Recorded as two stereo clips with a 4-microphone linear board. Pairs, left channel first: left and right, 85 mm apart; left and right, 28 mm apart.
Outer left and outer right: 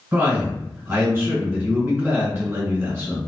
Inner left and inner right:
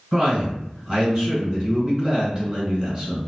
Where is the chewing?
No chewing in this recording.